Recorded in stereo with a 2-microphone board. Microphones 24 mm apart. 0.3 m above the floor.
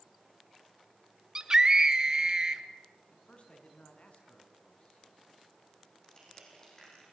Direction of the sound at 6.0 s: 30° left (ahead or behind).